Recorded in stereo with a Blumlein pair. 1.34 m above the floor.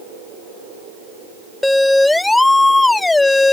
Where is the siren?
5° left; by 3.5 s 10° left.